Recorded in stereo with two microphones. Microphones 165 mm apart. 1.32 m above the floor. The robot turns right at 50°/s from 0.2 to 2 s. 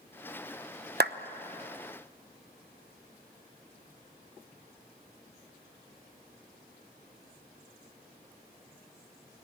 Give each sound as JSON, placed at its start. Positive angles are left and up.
{"t": 1.0, "sound": "a clap", "side_deg": -85, "distance_m": 1.0}